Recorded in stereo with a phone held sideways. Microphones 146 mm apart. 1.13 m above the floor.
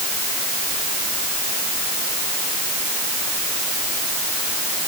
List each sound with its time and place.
Only background noise.